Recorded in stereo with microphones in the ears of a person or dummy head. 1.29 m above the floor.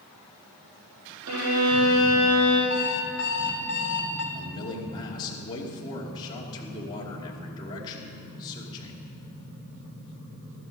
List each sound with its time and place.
1.3 s a violin: 80° right, 6.5 m
2.7 s an alarm clock: 50° left (ahead or behind), 3.5 m
4.3 s a man speaking: 25° left (ahead or behind), 2.5 m